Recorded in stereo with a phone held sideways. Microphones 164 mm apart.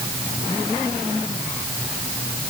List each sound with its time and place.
Only background noise.